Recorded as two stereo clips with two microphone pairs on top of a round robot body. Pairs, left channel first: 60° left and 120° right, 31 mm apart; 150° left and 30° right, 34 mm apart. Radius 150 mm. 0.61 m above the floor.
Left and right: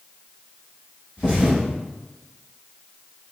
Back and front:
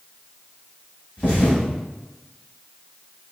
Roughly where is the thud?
Behind left.